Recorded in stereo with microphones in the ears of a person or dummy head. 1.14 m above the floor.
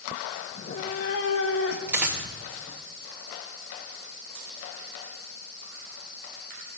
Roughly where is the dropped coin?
Centre.